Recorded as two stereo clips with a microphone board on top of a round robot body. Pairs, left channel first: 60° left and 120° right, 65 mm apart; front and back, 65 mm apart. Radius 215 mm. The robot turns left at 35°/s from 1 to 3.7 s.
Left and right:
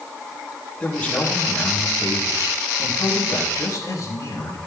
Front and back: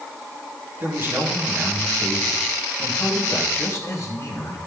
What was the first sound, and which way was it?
A man speaking, 135° left.